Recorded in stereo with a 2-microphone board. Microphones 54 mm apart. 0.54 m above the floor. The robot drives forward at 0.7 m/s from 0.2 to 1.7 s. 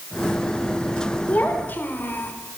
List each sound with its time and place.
1.3 s a child speaking: 30° left (ahead or behind), 1.4 m; by 2.3 s 35° left (ahead or behind), 1.2 m